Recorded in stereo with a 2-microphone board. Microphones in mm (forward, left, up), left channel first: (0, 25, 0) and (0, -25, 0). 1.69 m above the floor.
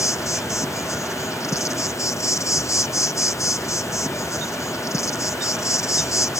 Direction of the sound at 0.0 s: 80° left.